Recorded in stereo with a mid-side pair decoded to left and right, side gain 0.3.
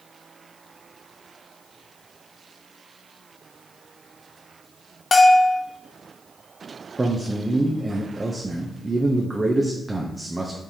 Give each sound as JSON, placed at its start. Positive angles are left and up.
{"t": 5.1, "sound": "a bell", "azimuth_deg": 45, "distance_m": 0.7}
{"t": 7.0, "sound": "a man speaking", "azimuth_deg": -25, "distance_m": 0.7}